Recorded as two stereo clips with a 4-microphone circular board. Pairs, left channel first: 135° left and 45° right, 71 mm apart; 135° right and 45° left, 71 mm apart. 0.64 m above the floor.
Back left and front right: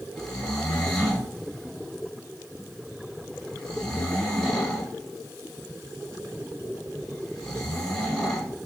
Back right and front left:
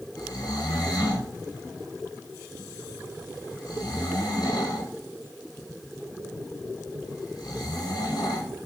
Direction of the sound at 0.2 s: 145° right.